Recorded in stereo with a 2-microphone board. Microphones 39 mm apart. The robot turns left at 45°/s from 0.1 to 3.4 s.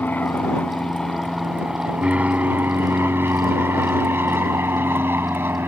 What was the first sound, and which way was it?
An aircraft, 50° left (ahead or behind).